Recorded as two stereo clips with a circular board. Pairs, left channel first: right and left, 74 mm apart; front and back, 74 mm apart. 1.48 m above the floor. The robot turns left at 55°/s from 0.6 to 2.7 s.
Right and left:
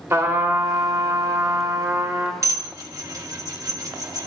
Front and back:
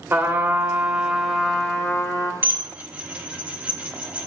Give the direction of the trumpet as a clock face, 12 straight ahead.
8 o'clock.